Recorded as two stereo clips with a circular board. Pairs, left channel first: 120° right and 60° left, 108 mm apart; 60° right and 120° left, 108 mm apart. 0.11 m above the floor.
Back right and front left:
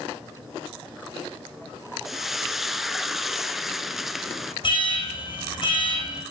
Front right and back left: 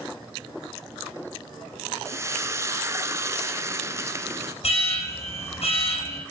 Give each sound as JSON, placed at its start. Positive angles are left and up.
{"t": 2.0, "sound": "frying", "azimuth_deg": 145, "distance_m": 0.6}
{"t": 4.6, "sound": "an alarm", "azimuth_deg": -80, "distance_m": 5.5}